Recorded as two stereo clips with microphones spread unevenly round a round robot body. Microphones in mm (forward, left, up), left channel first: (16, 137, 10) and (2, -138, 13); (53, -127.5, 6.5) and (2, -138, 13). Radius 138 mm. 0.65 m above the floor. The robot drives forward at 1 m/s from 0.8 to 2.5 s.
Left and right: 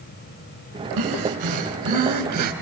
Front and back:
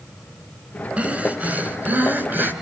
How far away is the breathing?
About 5 m.